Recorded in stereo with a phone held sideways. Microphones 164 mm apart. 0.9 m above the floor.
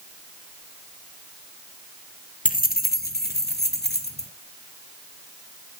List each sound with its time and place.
2.5 s keys jangling: 55° left (ahead or behind), 0.8 m; by 4.3 s 80° left, 1.8 m